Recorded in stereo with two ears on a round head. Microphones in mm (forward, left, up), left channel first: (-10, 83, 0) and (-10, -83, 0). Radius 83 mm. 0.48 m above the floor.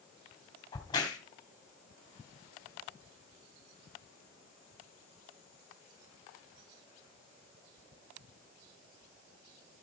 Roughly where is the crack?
Left.